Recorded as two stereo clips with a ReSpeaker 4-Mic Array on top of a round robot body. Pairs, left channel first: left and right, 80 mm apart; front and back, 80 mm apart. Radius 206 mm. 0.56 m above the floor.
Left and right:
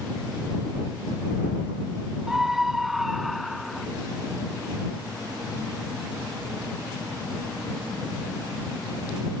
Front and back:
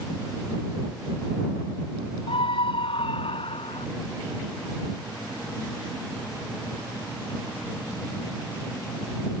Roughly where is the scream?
Ahead.